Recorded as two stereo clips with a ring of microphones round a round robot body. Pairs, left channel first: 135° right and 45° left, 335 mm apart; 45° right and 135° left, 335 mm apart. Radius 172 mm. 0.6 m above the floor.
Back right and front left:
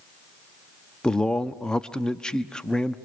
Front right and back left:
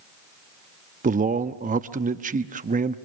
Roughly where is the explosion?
I don't hear an explosion.